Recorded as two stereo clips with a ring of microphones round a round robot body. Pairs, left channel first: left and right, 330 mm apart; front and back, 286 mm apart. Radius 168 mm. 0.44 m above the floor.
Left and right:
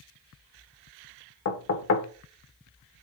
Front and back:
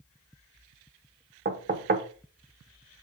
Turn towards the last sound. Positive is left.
turn(degrees=130)